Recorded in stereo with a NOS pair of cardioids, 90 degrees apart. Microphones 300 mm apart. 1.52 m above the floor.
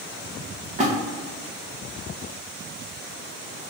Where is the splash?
25° right, 1.2 m.